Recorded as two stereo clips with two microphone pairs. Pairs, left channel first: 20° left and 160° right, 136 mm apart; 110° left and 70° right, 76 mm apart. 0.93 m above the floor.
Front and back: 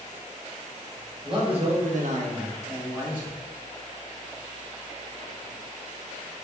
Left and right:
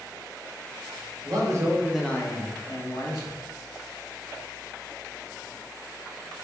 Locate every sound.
1.2 s a man speaking: 105° right, 1.1 m; by 3.4 s 115° left, 1.6 m